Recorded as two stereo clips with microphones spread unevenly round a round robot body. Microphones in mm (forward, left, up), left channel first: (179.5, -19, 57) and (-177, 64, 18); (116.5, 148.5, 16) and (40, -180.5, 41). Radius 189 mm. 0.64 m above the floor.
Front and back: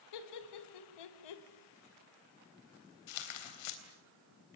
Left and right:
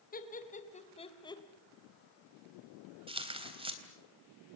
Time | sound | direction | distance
0.1 | laughter | 15° left | 4 m
3.1 | tearing paper | 30° right | 3.5 m